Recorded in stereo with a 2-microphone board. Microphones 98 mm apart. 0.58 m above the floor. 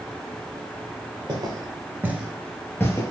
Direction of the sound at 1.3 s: 40° right (ahead or behind).